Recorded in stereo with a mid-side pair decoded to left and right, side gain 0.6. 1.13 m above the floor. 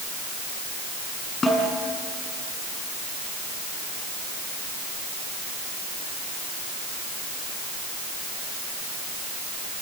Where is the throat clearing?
I don't hear throat clearing.